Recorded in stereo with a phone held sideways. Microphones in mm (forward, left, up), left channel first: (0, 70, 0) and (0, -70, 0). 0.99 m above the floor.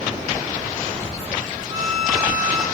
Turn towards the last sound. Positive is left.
turn(degrees=-30)  # may be behind; listen again after turning